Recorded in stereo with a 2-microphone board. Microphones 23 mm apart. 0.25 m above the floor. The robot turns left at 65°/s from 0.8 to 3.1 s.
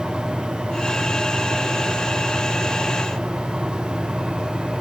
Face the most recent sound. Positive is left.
No sound to turn to.